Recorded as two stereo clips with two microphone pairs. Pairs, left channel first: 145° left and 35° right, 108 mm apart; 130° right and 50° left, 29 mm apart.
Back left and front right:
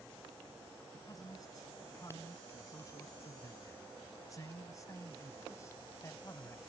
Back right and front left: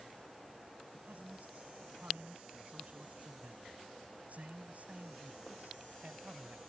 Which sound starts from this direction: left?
A man speaking, at 0.9 s.